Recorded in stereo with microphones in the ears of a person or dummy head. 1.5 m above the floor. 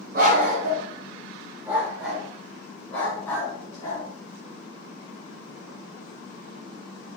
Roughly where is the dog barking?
Right.